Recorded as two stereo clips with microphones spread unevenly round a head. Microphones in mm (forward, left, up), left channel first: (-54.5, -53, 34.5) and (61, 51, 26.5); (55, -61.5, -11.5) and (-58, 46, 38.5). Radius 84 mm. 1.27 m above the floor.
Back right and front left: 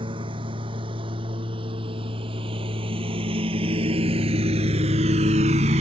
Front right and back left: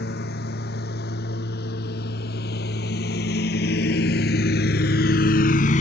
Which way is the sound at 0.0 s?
15° right.